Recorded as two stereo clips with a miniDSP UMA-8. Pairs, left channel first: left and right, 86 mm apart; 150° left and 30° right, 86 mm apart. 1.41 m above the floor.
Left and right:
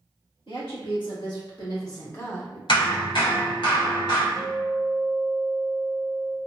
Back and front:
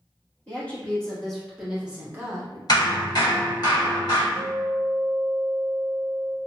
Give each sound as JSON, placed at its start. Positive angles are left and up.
{"t": 0.5, "sound": "a woman speaking", "azimuth_deg": 75, "distance_m": 1.7}
{"t": 2.7, "sound": "hammering", "azimuth_deg": 110, "distance_m": 1.3}
{"t": 4.3, "sound": "a guitar", "azimuth_deg": -5, "distance_m": 1.0}